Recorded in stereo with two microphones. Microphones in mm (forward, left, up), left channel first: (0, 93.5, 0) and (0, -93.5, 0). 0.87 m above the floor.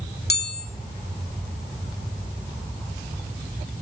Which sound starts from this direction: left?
A chime, at 0.3 s.